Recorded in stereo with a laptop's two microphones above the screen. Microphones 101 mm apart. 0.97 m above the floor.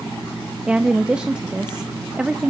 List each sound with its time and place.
0.7 s a woman speaking: 10° right (ahead or behind), 0.6 m